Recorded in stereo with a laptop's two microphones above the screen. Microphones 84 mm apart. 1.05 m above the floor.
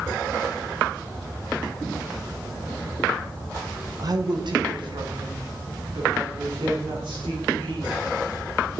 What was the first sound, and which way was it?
A woman speaking, 50° right (ahead or behind).